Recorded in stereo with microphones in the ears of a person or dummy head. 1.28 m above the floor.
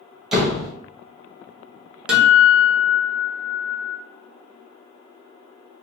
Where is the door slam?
Centre (ahead or behind), 1.1 m.